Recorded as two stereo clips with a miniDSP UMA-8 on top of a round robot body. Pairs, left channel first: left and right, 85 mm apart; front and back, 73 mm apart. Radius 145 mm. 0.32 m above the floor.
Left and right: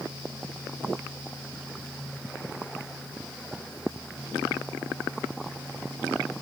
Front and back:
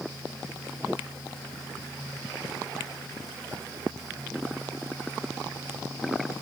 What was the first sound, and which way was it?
Only background noise.